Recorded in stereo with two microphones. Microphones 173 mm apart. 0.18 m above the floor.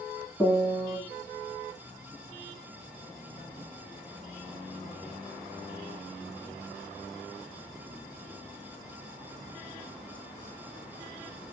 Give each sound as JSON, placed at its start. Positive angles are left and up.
{"t": 0.4, "sound": "a piano", "side_deg": 20, "distance_m": 1.4}